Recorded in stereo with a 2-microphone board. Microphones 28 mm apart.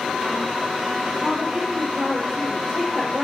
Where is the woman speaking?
20° right (ahead or behind), 5 m.